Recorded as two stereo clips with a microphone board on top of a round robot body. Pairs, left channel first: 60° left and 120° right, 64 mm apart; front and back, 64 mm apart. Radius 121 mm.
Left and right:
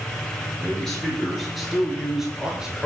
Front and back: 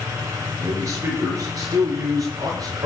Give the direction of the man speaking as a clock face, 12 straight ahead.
7 o'clock.